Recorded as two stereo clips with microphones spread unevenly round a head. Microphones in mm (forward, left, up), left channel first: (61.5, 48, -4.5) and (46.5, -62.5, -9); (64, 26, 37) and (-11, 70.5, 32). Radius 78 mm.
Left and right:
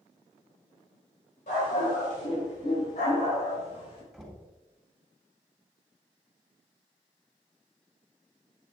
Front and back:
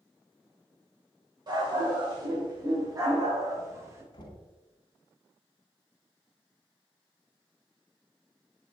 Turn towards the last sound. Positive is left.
turn(degrees=-5)